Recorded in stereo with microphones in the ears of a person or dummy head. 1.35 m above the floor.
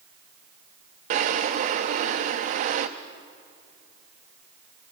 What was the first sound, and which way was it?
A drawer, 35° right (ahead or behind).